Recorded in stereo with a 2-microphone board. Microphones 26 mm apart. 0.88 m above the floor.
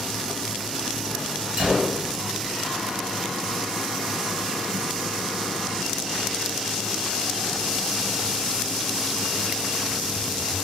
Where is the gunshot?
20° right (ahead or behind), 3.5 m.